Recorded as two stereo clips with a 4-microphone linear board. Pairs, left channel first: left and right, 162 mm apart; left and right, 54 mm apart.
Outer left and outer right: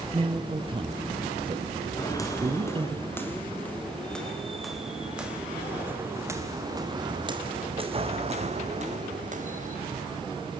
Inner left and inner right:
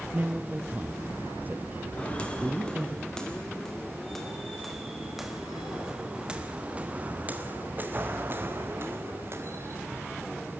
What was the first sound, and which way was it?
A man speaking, 30° right (ahead or behind).